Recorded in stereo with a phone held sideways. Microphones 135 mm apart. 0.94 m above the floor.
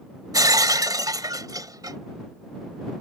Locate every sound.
0.3 s breaking glass: 30° right (ahead or behind)